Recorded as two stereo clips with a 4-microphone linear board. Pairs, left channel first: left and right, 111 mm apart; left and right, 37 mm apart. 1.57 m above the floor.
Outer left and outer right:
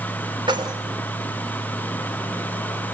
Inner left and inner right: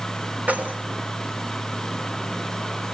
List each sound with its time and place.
0.5 s keys jangling: 45° right (ahead or behind), 3.5 m